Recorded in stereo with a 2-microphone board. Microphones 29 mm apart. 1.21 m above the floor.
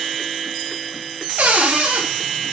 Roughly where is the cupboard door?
Right.